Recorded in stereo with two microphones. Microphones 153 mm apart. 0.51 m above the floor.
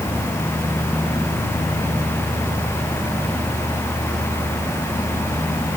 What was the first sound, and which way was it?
Only background noise.